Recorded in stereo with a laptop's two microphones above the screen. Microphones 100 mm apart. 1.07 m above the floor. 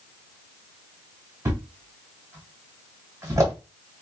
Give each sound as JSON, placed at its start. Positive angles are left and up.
{"t": 1.4, "sound": "a thud", "side_deg": -30, "distance_m": 1.3}